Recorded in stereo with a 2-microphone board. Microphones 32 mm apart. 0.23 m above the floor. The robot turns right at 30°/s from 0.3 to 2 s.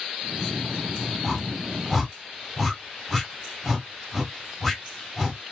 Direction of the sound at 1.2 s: 10° left (ahead or behind).